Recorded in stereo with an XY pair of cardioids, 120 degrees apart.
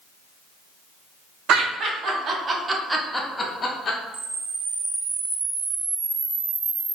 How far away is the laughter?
About 1.3 m.